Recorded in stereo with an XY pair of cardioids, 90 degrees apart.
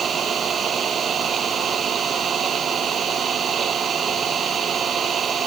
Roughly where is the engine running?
Ahead right.